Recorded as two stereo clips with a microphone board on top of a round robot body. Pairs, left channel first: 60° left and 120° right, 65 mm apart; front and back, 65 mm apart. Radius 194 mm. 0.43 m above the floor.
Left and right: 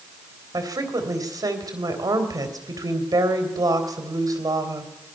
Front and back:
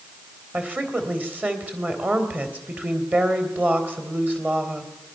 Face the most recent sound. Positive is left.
turn(degrees=-120)